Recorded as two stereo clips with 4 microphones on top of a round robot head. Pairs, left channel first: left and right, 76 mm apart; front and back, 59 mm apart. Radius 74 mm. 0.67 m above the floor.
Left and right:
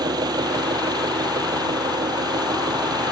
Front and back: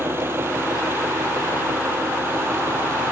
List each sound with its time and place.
0.0 s an engine running: 125° right